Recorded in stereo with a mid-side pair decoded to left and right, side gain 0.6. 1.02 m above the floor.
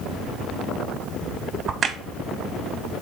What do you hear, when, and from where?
1.7 s a crack: 40° right, 0.5 m